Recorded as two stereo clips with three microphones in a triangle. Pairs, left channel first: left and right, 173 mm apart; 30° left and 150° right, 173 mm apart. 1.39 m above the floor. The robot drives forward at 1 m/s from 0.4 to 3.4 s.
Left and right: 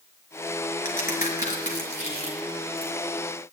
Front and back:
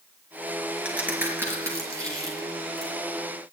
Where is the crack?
130° left, 4.5 m; by 2.9 s 145° left, 6 m.